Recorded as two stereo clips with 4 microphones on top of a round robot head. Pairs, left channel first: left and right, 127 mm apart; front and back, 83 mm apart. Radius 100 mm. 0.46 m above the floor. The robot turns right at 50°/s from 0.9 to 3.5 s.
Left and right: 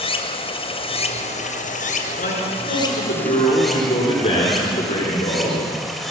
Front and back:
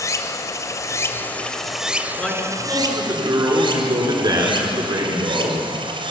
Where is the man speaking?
75° left, 8.5 m; by 5.7 s 140° left, 8.5 m.